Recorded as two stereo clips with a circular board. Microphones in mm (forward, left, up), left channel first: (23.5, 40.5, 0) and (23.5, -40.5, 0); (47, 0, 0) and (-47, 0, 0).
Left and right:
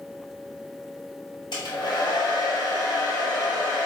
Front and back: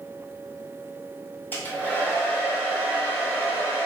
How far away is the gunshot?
I don't hear a gunshot.